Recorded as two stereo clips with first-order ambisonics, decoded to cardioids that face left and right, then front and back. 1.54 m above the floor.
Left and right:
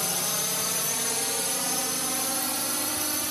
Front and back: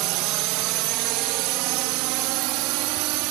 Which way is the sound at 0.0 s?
175° left.